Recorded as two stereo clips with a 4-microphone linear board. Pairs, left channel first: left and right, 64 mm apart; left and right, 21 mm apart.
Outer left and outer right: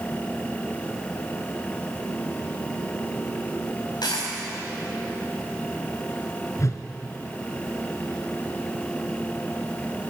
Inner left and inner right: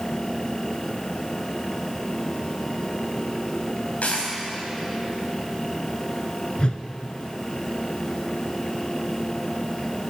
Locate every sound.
4.0 s a dropped coin: 90° left, 4 m
6.6 s a whoosh: 50° left (ahead or behind), 1.0 m